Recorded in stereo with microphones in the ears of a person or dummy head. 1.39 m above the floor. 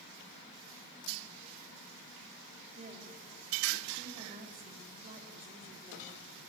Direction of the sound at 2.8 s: 30° right (ahead or behind).